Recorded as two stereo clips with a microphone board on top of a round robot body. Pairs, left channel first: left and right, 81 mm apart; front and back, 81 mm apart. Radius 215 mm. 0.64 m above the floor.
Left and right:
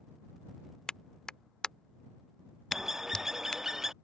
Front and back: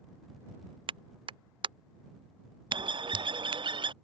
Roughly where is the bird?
Behind.